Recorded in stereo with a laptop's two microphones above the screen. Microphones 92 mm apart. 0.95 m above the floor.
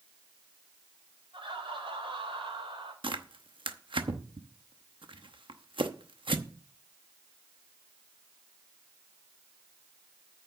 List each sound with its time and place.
1.3 s laughter: 70° right (ahead or behind), 5 m; by 2.9 s 75° right (ahead or behind), 4 m
3.0 s tearing paper: 65° right (ahead or behind), 0.9 m